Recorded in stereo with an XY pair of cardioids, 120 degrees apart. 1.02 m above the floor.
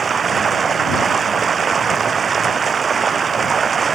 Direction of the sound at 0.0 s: 35° right.